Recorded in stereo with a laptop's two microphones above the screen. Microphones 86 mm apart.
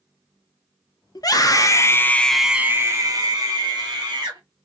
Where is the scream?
50° left (ahead or behind), 1.0 m; by 4.4 s 55° right (ahead or behind), 1.4 m.